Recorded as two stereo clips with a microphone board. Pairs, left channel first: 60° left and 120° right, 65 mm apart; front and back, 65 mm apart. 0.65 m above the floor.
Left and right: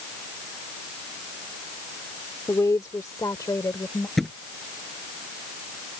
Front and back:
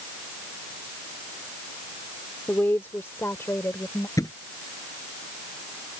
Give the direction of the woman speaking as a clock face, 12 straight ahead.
10 o'clock.